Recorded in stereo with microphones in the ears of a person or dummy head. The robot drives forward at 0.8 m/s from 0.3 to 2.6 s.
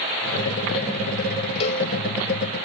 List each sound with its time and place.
1.6 s a cowbell: 30° left (ahead or behind), 0.6 m